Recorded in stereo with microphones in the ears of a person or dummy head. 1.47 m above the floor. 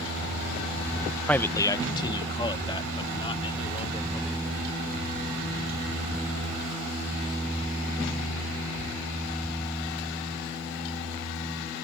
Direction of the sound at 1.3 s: 5° left (ahead or behind).